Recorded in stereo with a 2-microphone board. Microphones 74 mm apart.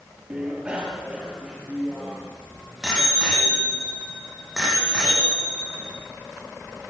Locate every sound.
0.3 s a bicycle bell: 15° right (ahead or behind), 4 m; by 5.9 s 5° right (ahead or behind), 11 m